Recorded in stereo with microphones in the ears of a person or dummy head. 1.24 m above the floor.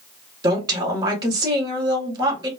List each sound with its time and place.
0.4 s a woman speaking: 25° right (ahead or behind), 1.2 m